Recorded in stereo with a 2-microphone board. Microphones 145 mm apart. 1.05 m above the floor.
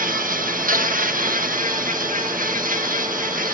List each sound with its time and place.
0.0 s an insect: 70° right (ahead or behind), 0.9 m